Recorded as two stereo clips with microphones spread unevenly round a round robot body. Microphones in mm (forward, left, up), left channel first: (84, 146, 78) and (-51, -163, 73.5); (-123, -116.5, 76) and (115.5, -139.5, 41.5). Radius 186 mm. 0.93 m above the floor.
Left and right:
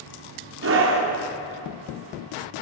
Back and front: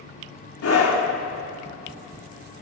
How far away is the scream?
About 3 m.